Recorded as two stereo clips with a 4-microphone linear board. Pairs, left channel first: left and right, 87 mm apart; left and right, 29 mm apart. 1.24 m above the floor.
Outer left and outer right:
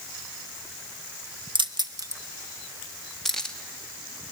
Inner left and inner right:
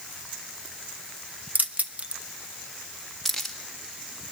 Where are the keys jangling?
70° right (ahead or behind), 1.0 m; by 3.5 s 10° left (ahead or behind), 1.9 m.